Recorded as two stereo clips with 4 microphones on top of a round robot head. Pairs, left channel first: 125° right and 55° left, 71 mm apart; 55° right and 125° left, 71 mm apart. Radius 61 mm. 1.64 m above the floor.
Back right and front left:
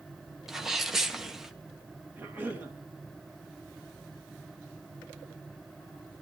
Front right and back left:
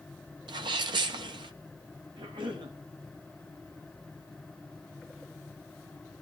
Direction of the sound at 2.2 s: 125° left.